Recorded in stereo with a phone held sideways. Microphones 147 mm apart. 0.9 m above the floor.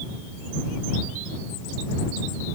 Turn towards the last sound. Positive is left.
No sound to turn to.